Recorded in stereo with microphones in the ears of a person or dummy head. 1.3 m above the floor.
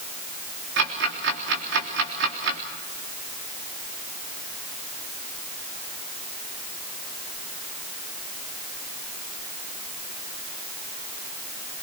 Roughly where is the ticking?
Right.